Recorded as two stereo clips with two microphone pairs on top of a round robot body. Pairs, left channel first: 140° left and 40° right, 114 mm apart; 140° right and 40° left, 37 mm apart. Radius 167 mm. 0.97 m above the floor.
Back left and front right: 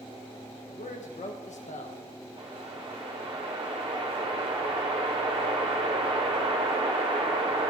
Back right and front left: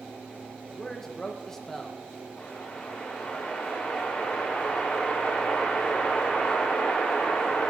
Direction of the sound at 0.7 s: 145° left.